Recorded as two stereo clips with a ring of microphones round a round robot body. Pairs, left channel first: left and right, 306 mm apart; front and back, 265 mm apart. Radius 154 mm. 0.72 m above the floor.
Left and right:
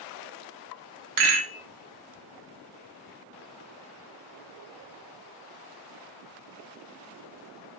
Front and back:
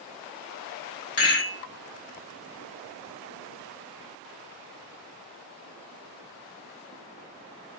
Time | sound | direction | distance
1.2 | a rattle | 60° right | 0.6 m